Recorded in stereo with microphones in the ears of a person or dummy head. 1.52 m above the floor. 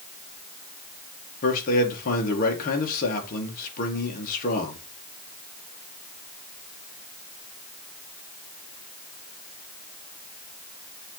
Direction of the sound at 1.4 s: 45° left (ahead or behind).